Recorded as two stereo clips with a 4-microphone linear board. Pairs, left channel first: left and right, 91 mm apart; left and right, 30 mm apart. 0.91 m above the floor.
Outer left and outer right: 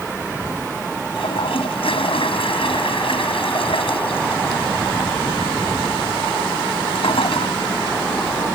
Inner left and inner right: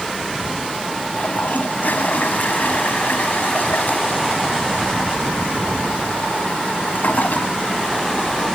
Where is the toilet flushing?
85° left.